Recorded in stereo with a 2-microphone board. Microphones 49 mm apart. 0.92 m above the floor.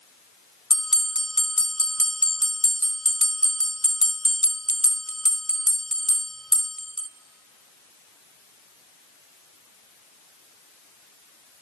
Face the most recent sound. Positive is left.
turn(degrees=10)  # may be behind; listen again after turning